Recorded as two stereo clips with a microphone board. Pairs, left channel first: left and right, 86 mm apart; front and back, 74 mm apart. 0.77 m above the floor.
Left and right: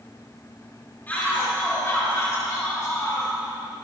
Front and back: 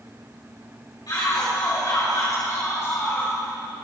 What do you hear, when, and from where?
1.1 s a shout: 25° left, 4 m; by 3.4 s 55° left, 3.5 m